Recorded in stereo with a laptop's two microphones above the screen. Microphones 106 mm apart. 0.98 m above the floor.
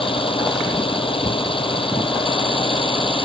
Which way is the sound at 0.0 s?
55° left (ahead or behind).